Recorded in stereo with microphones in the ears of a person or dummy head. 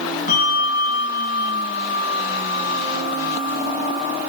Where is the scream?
I don't hear a scream.